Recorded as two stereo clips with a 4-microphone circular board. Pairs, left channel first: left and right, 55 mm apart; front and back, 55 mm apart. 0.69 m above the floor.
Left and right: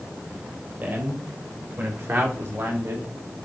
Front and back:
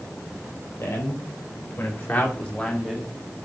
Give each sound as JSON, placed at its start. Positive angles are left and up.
{"t": 0.8, "sound": "a man speaking", "azimuth_deg": -40, "distance_m": 4.0}